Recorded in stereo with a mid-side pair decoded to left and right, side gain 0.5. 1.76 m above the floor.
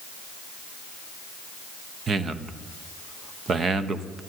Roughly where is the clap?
No clap in this recording.